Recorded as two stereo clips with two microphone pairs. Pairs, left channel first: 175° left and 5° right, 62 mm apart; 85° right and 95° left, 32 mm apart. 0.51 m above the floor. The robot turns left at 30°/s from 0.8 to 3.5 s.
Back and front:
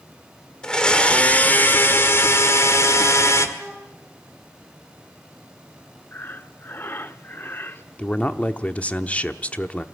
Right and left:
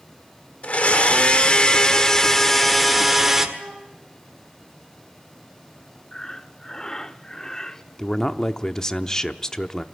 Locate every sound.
0.6 s a blender: 110° right, 1.5 m; by 3.5 s 170° left, 1.5 m
3.6 s a flute: 85° left, 5 m
6.1 s breathing: 150° right, 0.7 m
8.0 s a man speaking: 140° right, 0.8 m